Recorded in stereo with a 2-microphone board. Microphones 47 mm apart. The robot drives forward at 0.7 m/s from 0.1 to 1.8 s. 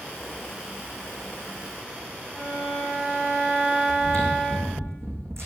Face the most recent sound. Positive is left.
turn(degrees=-80)